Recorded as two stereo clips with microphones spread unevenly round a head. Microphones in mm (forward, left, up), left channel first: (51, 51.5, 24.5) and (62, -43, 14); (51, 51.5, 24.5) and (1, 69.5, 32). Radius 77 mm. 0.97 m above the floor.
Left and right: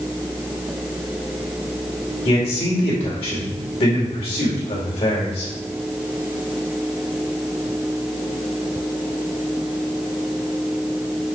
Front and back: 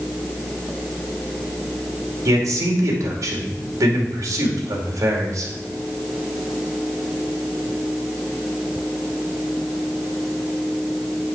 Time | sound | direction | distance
2.2 | a man speaking | 145° left | 2.5 m